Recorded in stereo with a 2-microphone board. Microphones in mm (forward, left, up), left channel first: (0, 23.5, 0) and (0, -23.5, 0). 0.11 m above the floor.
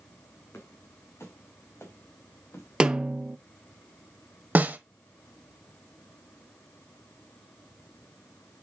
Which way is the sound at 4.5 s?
35° right (ahead or behind).